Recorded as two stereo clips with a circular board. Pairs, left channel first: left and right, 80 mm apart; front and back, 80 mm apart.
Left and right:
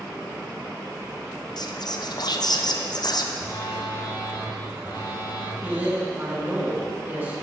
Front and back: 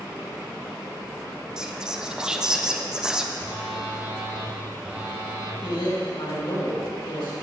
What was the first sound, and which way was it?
Whispering, 100° left.